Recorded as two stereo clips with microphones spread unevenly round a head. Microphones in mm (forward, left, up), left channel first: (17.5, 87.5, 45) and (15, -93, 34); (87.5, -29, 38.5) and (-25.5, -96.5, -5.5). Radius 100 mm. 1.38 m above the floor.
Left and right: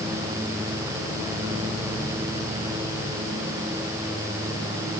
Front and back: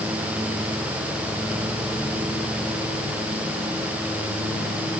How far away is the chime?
I don't hear a chime.